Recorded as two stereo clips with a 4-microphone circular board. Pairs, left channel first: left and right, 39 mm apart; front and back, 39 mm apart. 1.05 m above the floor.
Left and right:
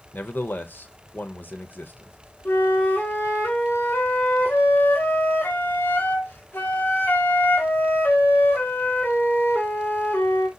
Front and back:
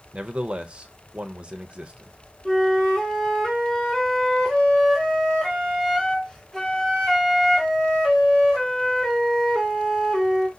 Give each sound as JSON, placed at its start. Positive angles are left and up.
{"t": 0.1, "sound": "a man speaking", "azimuth_deg": 120, "distance_m": 0.6}
{"t": 2.5, "sound": "a flute", "azimuth_deg": 80, "distance_m": 0.8}